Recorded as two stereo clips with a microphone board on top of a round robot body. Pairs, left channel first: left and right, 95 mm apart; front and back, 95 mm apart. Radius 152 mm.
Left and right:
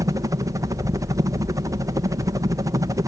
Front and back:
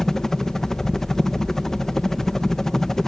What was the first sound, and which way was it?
A helicopter, 80° right.